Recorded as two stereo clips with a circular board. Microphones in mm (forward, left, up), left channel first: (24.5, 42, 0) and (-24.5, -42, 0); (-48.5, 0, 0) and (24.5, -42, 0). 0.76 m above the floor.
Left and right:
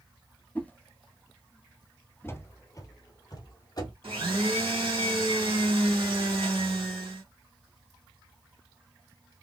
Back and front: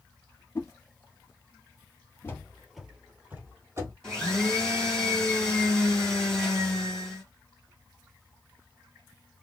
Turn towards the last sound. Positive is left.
turn(degrees=-130)